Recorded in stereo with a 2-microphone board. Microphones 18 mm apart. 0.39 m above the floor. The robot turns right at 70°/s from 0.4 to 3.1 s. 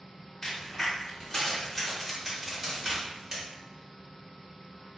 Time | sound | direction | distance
0.4 | a crack | 30° left (ahead or behind) | 1.1 m